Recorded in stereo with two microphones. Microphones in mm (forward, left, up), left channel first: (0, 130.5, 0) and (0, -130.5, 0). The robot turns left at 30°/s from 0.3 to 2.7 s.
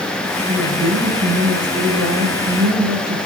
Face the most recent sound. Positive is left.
turn(degrees=-90)